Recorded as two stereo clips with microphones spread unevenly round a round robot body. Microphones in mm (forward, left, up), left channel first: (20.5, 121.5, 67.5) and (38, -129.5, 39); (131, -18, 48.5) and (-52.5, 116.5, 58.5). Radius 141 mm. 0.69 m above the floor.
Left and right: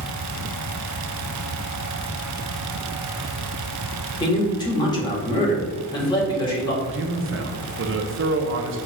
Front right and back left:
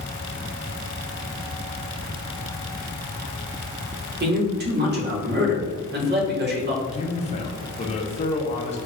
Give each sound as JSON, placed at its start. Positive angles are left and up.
{"t": 4.2, "sound": "a man speaking", "azimuth_deg": 165, "distance_m": 1.5}
{"t": 6.9, "sound": "a man speaking", "azimuth_deg": -90, "distance_m": 0.8}